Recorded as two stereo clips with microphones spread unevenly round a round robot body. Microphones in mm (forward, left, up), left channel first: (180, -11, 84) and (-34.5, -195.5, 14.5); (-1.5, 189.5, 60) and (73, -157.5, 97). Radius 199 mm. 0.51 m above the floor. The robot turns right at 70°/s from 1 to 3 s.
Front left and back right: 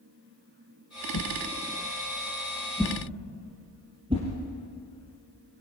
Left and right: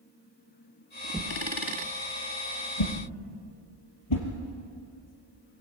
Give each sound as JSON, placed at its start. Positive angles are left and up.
{"t": 1.1, "sound": "a whoosh", "azimuth_deg": 10, "distance_m": 4.0}